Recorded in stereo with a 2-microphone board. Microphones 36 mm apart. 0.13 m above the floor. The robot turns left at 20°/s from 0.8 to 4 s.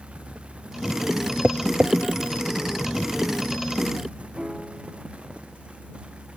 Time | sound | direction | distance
1.4 | tapping | 35° right (ahead or behind) | ?
4.4 | a piano | 15° right (ahead or behind) | ?